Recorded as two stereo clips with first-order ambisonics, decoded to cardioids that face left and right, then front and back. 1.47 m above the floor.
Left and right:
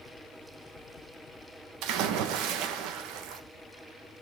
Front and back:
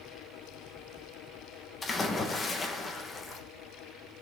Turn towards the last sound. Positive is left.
turn(degrees=-70)